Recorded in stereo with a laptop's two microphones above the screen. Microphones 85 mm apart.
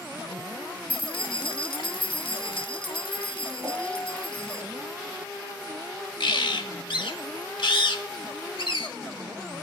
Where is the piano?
45° right (ahead or behind), 1.1 m.